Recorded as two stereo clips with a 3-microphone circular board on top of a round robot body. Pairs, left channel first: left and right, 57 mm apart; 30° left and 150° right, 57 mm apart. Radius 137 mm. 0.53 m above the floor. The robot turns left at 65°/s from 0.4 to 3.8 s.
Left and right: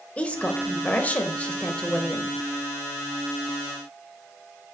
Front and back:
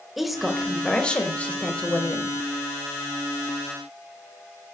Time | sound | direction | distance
0.2 | a woman speaking | 125° left | 0.9 m